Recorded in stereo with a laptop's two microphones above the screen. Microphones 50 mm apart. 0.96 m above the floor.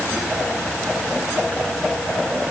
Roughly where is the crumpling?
No crumpling in this recording.